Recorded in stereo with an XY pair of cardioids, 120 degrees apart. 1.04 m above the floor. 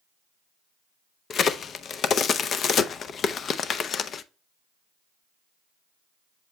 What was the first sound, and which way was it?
A crack, 50° left.